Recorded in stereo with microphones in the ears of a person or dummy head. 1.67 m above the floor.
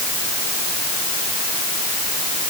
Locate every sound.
Only background noise.